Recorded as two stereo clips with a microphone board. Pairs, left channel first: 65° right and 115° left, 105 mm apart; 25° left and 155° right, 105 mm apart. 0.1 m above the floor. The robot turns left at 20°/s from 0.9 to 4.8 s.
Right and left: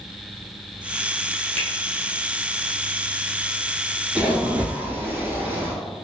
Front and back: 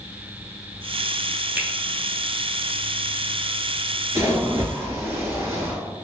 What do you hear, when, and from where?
1.6 s a finger snap: 85° right, 0.9 m; by 1.7 s 90° right, 0.9 m
4.2 s a splash: straight behind, 0.7 m; by 5.8 s 165° left, 0.7 m